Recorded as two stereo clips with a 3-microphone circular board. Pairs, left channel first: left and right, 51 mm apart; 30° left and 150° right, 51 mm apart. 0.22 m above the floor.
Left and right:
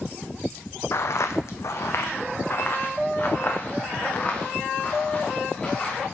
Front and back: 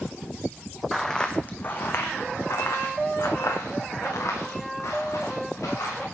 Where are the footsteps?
115° left, 0.8 m; by 6.0 s 25° left, 3.5 m.